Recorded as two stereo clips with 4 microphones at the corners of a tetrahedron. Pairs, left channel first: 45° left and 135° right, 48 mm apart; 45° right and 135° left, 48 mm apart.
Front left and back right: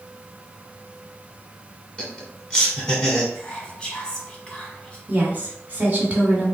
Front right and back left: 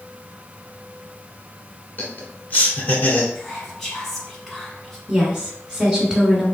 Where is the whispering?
20° left, 1.0 m.